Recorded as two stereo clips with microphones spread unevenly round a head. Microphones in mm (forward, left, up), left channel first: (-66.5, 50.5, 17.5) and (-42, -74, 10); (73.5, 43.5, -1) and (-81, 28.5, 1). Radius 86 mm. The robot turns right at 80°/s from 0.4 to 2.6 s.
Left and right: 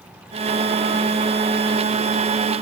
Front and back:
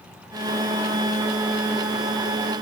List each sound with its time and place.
Only background noise.